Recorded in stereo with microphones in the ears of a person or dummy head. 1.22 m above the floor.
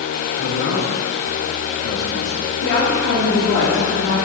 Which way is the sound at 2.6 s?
80° left.